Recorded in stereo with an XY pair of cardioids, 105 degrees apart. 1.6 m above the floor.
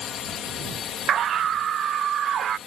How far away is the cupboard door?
I don't hear a cupboard door.